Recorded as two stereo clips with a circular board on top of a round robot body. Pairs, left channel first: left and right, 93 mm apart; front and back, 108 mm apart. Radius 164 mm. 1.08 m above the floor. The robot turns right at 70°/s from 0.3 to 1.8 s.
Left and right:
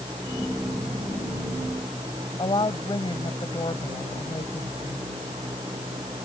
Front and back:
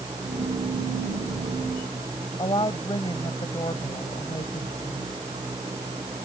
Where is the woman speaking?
50° left.